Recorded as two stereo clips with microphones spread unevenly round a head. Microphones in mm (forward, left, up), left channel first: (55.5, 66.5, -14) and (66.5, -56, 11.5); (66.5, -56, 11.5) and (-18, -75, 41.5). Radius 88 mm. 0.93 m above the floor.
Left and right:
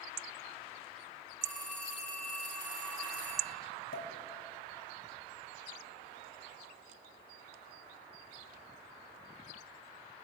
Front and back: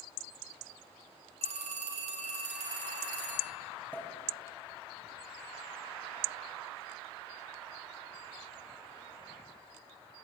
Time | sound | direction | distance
1.4 | a phone ringing | 175° right | 1.2 m
3.9 | a pop | 100° left | 1.6 m